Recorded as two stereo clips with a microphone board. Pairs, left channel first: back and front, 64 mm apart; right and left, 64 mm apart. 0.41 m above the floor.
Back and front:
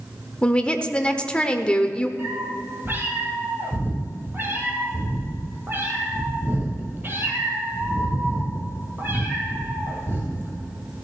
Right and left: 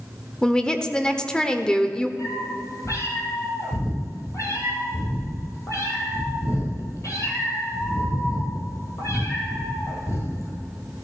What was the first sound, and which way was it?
A woman speaking, 140° right.